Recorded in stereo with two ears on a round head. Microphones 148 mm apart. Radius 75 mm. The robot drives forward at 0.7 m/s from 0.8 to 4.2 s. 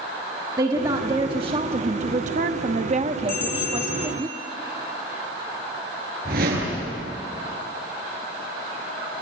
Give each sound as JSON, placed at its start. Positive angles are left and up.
{"t": 0.6, "sound": "a woman speaking", "side_deg": -25, "distance_m": 1.4}
{"t": 3.3, "sound": "a bell", "side_deg": 60, "distance_m": 6.0}
{"t": 6.2, "sound": "a whoosh", "side_deg": -55, "distance_m": 8.0}